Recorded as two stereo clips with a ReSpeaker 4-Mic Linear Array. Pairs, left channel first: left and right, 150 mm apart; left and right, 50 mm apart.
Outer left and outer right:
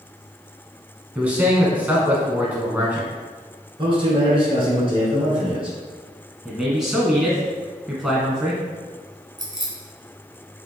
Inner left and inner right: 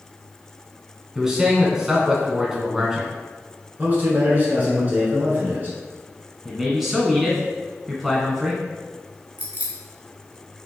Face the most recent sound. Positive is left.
turn(degrees=-30)  # may be behind; listen again after turning